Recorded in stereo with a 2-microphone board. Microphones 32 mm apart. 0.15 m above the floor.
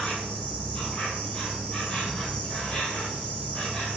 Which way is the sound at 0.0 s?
30° left (ahead or behind).